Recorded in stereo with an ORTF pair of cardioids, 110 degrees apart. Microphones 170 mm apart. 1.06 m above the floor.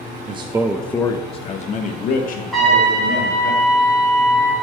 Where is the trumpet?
Straight ahead, 1.8 m.